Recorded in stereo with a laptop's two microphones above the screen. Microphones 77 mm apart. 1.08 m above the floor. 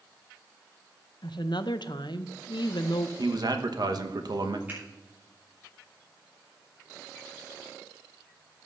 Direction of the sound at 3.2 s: 60° right (ahead or behind).